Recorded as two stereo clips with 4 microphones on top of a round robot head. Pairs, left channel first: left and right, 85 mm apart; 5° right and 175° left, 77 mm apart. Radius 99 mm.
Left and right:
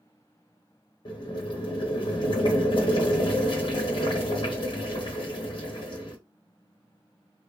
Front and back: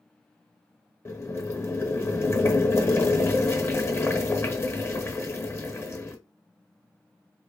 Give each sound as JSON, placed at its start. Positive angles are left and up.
{"t": 1.1, "sound": "boiling", "azimuth_deg": 55, "distance_m": 0.9}